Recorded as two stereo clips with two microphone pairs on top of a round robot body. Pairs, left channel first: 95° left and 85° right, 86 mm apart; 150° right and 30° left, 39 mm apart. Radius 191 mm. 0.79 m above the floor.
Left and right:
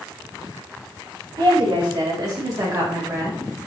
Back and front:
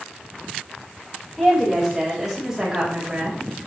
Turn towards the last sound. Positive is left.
turn(degrees=-25)